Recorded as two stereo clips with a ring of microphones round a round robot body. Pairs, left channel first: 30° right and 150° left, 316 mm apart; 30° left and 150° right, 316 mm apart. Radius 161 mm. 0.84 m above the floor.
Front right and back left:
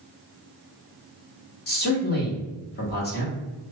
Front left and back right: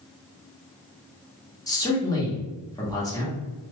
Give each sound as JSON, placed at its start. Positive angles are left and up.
{"t": 1.7, "sound": "a man speaking", "azimuth_deg": -40, "distance_m": 1.1}